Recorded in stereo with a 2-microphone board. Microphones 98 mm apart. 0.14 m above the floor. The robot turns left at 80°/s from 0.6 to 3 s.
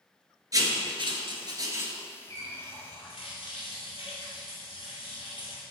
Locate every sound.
0.5 s writing: 40° right (ahead or behind), 1.0 m; by 1.9 s 20° right (ahead or behind), 1.0 m
2.3 s a running tap: 140° left, 2 m; by 5.6 s 85° left, 2 m